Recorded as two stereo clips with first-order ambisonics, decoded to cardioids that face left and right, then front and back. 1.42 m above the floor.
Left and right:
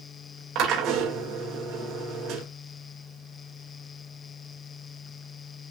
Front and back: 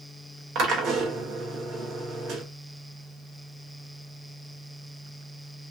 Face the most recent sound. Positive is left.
turn(degrees=-130)